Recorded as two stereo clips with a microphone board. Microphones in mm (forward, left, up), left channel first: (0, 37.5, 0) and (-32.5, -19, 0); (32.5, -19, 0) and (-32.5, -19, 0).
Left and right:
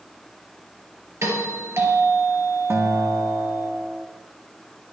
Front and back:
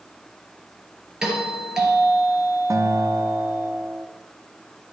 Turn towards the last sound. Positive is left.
turn(degrees=-160)